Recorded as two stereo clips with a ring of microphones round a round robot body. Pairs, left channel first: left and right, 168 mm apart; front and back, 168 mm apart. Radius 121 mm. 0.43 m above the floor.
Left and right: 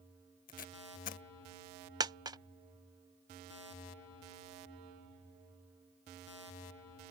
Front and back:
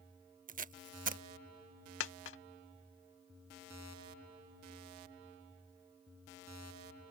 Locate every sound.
0.5 s tape being pulled: 140° left
2.0 s a dropped coin: 20° right